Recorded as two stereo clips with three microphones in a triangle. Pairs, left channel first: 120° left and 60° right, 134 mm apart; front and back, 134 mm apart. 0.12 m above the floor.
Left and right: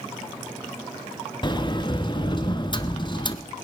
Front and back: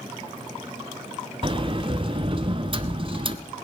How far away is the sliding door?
About 0.7 m.